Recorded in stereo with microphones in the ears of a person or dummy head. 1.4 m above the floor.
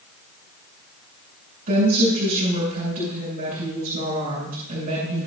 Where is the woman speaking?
50° right (ahead or behind), 7 m.